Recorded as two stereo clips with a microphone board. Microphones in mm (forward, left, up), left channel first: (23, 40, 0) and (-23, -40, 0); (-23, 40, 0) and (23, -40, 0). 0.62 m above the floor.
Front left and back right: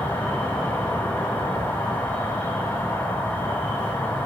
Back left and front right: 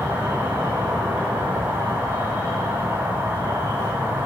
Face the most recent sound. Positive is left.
turn(degrees=0)